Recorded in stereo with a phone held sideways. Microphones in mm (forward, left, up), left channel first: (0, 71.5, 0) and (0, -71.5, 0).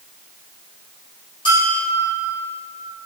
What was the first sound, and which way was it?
A bell, 35° left (ahead or behind).